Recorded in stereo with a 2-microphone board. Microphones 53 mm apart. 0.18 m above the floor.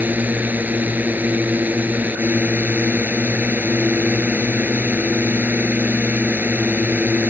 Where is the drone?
35° right (ahead or behind).